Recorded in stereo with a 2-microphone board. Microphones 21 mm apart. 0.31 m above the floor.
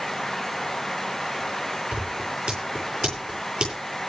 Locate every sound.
1.9 s scissors: 45° right (ahead or behind), 8.5 m